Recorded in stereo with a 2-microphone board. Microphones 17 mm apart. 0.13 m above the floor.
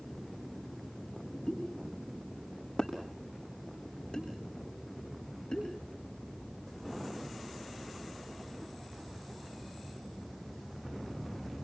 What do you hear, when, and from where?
1.5 s a pop: 55° left (ahead or behind), 6.5 m